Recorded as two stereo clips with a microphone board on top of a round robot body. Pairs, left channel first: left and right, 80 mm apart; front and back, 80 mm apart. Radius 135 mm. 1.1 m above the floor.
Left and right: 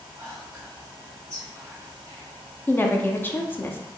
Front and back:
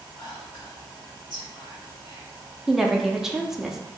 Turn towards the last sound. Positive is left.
turn(degrees=100)